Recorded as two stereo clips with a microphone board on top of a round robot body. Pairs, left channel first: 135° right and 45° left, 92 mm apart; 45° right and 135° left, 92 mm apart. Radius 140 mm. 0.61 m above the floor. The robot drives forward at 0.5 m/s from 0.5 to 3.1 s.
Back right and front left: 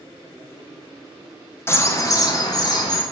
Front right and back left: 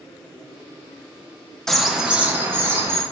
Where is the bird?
125° right, 0.6 m; by 3.0 s 165° right, 1.0 m.